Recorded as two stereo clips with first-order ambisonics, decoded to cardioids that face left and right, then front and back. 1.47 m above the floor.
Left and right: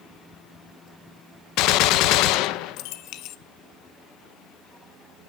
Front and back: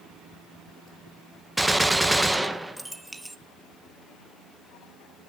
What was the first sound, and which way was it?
A gunshot, 95° left.